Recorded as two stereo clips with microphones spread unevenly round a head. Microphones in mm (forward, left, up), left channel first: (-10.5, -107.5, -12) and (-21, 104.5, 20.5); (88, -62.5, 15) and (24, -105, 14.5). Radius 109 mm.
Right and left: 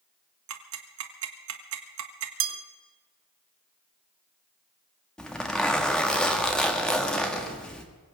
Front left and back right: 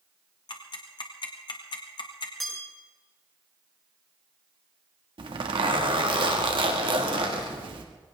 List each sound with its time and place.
0.5 s ticking: 65° left, 1.8 m
2.4 s a bell: 125° left, 1.4 m
5.2 s a zipper: 170° right, 1.8 m